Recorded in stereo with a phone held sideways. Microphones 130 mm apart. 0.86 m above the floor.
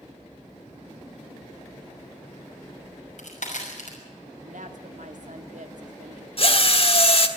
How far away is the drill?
About 1.4 m.